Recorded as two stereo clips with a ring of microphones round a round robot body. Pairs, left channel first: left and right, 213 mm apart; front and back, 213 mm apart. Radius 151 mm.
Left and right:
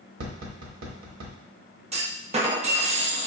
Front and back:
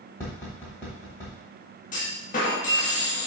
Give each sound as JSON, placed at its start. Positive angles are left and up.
{"t": 0.2, "sound": "tapping", "azimuth_deg": -80, "distance_m": 1.1}
{"t": 1.9, "sound": "a clunk", "azimuth_deg": -40, "distance_m": 0.9}